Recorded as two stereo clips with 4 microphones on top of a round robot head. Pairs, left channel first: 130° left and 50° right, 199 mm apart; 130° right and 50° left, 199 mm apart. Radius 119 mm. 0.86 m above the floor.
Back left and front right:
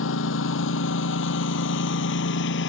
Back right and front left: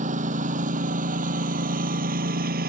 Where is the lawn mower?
105° left; by 2.7 s 95° left.